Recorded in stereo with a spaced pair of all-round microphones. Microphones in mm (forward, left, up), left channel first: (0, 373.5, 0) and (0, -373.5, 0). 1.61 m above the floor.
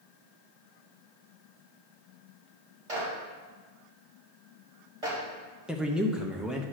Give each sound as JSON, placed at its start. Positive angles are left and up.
{"t": 2.9, "sound": "a clap", "side_deg": -50, "distance_m": 3.0}
{"t": 5.7, "sound": "a man speaking", "side_deg": 0, "distance_m": 0.8}